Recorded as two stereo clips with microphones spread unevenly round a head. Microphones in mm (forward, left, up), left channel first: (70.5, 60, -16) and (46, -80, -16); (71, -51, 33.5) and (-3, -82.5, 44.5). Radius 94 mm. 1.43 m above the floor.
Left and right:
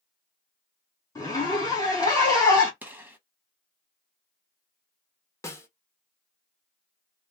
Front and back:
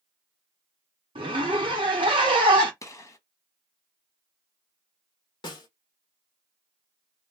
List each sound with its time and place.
1.1 s a zipper: 150° left, 0.7 m
2.8 s a gunshot: 20° right, 1.0 m
5.4 s a snare drum: 15° left, 1.0 m